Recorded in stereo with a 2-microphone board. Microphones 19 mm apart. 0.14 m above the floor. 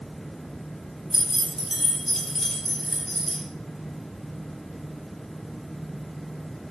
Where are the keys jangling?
25° right (ahead or behind), 1.3 m; by 3.4 s 20° left (ahead or behind), 1.2 m.